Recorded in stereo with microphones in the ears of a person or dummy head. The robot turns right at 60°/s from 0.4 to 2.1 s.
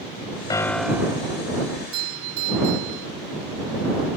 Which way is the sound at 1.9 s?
85° right.